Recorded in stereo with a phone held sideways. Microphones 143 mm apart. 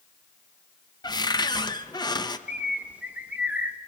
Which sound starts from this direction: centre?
A bird, at 2.5 s.